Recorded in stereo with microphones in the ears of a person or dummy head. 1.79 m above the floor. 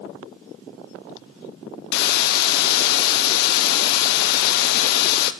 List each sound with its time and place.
1.9 s a hiss: 60° left (ahead or behind), 0.7 m